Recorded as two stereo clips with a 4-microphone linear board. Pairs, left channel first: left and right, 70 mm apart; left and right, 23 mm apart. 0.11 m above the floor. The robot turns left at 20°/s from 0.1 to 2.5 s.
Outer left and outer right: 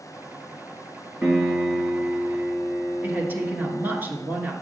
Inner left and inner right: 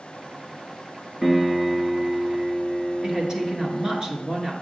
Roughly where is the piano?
Right.